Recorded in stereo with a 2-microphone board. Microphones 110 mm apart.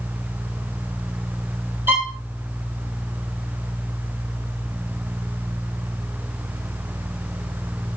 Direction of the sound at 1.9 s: 20° right (ahead or behind).